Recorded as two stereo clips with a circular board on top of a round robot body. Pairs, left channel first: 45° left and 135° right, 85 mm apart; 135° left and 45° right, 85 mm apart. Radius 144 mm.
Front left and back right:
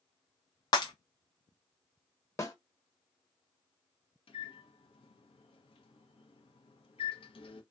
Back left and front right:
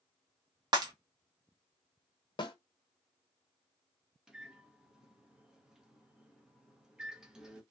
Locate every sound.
0.7 s breaking glass: straight ahead, 0.9 m
2.4 s a snare drum: 105° left, 1.1 m
4.3 s a microwave: 40° left, 0.8 m